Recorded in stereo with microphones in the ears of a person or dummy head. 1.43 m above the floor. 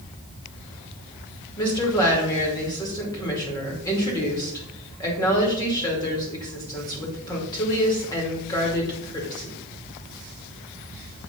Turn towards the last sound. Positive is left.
turn(degrees=20)  # may be behind; listen again after turning